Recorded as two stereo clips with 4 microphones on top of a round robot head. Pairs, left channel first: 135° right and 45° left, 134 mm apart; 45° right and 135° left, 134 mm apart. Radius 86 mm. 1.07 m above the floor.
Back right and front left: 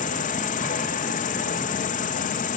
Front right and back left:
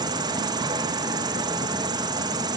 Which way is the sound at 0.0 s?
165° right.